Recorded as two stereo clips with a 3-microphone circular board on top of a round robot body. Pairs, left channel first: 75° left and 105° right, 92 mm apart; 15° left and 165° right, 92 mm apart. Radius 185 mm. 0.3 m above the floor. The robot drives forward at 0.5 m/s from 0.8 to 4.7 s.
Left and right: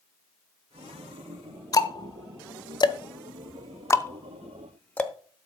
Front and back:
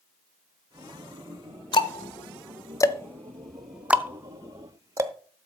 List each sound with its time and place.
1.7 s ticking: 30° left, 1.1 m; by 5.1 s 145° left, 1.0 m